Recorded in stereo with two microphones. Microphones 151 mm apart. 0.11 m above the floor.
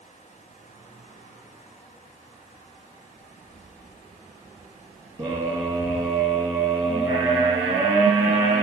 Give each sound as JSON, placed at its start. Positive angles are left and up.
{"t": 3.2, "sound": "footsteps", "side_deg": -55, "distance_m": 1.8}
{"t": 5.2, "sound": "a scream", "side_deg": -20, "distance_m": 2.0}